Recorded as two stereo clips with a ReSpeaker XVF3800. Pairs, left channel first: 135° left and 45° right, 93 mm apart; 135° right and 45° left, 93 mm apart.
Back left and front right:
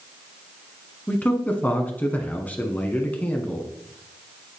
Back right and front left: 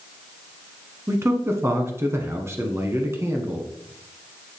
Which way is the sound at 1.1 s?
75° left.